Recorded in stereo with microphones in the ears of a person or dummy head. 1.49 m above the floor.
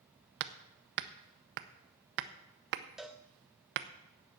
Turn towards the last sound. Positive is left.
turn(degrees=0)  # may be behind; listen again after turning